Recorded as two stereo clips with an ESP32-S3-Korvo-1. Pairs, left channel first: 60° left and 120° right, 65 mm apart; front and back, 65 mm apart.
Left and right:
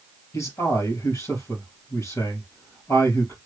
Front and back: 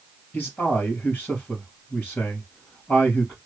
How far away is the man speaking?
About 2.5 m.